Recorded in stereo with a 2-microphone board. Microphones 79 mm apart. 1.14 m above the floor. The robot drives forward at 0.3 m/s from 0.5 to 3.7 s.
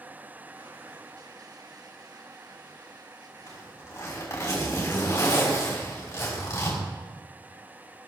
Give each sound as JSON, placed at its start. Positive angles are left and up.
{"t": 3.5, "sound": "a zipper", "side_deg": 35, "distance_m": 5.5}